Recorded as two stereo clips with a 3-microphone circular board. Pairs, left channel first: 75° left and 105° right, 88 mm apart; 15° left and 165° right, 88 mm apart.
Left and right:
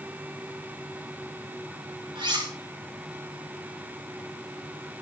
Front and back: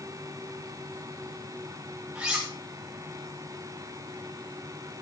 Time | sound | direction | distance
2.1 | cutlery clinking | 85° right | 7 m